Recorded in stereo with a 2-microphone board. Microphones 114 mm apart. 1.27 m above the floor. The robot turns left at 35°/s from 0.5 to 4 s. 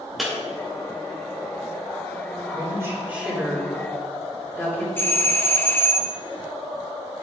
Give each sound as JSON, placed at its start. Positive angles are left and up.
{"t": 0.2, "sound": "breaking glass", "side_deg": 0, "distance_m": 2.5}
{"t": 2.5, "sound": "a woman speaking", "side_deg": -35, "distance_m": 2.5}
{"t": 5.0, "sound": "a doorbell", "side_deg": 15, "distance_m": 0.6}